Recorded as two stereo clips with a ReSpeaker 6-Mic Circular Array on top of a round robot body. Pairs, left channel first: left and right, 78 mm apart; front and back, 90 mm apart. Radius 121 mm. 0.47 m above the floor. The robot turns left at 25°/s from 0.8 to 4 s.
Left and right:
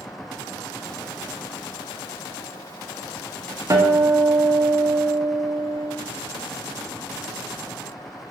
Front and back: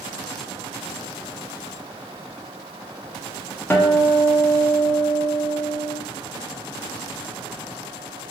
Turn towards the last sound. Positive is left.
turn(degrees=-65)